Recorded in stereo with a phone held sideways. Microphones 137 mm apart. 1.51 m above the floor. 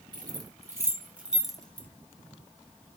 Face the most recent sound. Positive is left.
turn(degrees=10)  # may be behind; listen again after turning